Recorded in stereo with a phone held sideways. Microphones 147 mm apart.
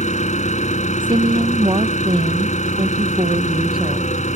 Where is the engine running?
55° left (ahead or behind).